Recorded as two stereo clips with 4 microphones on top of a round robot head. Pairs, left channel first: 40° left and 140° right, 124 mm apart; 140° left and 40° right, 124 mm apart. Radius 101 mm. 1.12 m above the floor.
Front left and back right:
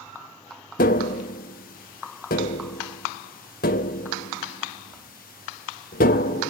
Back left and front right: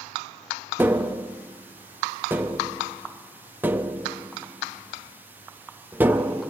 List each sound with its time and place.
0.8 s tapping: 40° left, 0.7 m